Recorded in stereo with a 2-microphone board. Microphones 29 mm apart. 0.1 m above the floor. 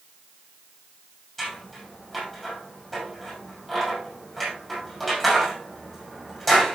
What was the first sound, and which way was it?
Scissors, 5° left (ahead or behind).